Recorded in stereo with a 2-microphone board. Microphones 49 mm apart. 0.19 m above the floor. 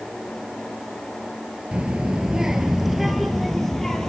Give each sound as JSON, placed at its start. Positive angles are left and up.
{"t": 1.7, "sound": "a child speaking", "side_deg": -20, "distance_m": 2.5}